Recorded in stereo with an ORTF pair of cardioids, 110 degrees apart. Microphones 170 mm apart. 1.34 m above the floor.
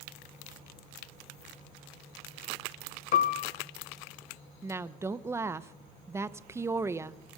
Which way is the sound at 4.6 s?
15° right.